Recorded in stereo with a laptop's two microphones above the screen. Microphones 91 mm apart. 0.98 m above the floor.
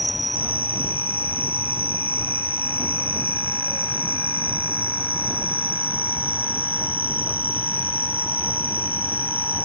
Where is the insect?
70° right (ahead or behind).